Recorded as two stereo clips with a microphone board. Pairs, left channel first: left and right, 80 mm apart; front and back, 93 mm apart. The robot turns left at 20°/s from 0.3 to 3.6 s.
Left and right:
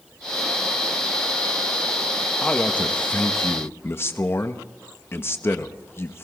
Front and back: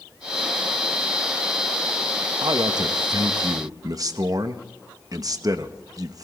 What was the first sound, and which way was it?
A man speaking, 170° left.